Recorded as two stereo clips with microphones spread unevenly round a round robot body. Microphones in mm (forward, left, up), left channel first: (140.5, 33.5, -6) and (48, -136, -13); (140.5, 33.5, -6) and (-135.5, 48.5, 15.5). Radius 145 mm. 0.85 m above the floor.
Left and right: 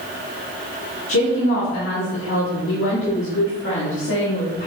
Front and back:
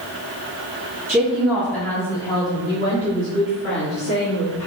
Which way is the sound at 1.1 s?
90° left.